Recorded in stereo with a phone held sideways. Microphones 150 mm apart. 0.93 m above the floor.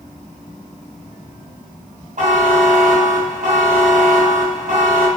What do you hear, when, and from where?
2.2 s a buzzer: 55° right (ahead or behind), 0.6 m